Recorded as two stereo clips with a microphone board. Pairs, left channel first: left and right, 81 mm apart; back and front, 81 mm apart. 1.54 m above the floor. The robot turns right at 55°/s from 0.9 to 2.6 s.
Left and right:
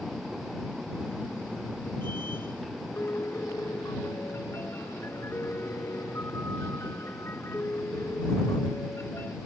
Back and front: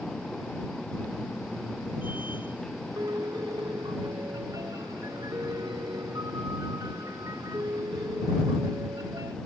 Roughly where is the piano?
Ahead left.